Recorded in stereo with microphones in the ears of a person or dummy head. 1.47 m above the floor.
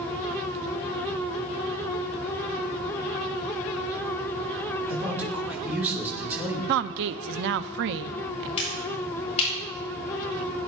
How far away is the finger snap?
About 9 m.